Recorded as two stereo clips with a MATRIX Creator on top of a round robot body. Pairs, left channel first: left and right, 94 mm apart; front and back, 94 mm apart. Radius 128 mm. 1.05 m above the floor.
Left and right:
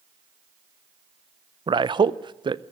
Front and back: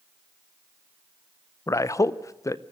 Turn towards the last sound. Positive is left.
turn(degrees=-55)